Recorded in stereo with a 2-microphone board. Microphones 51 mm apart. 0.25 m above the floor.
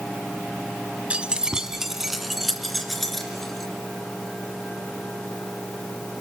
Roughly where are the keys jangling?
Right.